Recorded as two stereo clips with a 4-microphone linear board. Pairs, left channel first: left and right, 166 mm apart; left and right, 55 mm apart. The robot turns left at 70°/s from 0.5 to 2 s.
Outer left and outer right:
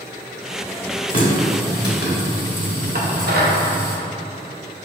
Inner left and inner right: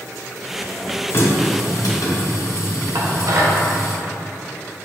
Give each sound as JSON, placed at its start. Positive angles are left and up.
{"t": 1.1, "sound": "a running tap", "azimuth_deg": 135, "distance_m": 1.6}
{"t": 3.0, "sound": "dishes clattering", "side_deg": -65, "distance_m": 0.7}